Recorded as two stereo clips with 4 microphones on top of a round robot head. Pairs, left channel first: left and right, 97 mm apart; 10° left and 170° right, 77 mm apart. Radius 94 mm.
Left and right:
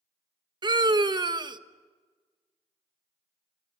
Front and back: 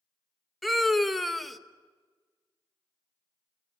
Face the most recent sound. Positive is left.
turn(degrees=-75)